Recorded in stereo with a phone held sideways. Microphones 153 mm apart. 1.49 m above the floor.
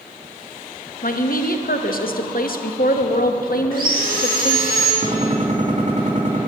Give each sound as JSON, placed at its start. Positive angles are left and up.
{"t": 1.0, "sound": "a woman speaking", "side_deg": 70, "distance_m": 1.0}
{"t": 3.7, "sound": "sawing", "side_deg": -75, "distance_m": 4.5}
{"t": 5.0, "sound": "a gunshot", "side_deg": -55, "distance_m": 3.5}